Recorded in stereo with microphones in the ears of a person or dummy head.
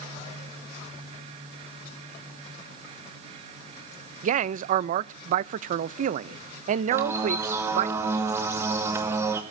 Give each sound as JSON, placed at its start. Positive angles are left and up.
{"t": 4.2, "sound": "a man speaking", "side_deg": -45, "distance_m": 0.6}
{"t": 6.9, "sound": "a bird", "side_deg": -15, "distance_m": 1.6}